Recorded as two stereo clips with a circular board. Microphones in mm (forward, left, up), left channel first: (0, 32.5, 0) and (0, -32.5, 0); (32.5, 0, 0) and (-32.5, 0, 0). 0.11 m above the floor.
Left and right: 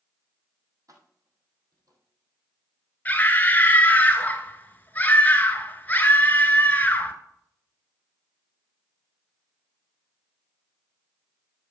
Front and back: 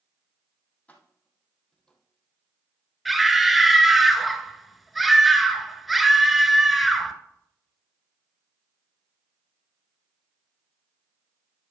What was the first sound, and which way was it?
Keys jangling, 70° right.